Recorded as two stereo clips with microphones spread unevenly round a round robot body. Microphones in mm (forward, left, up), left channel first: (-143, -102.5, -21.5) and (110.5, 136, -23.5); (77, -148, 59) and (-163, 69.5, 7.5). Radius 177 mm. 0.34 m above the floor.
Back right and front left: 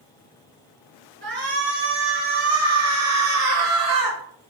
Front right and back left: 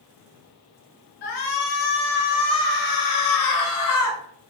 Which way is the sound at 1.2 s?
20° right.